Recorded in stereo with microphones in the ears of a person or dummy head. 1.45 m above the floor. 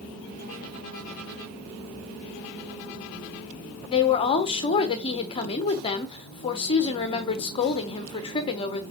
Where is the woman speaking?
30° left (ahead or behind), 0.6 m.